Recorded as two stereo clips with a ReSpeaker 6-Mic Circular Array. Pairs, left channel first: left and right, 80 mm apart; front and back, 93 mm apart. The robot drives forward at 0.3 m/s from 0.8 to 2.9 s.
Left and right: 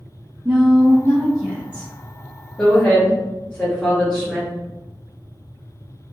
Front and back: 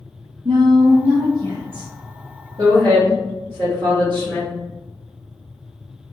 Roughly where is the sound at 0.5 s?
Behind.